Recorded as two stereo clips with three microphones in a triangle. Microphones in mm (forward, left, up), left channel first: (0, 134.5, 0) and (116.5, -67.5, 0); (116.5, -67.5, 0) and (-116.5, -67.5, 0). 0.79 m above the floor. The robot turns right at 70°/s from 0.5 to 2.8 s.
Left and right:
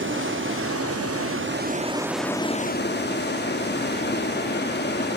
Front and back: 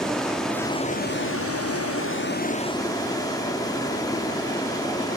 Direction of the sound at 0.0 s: 90° right.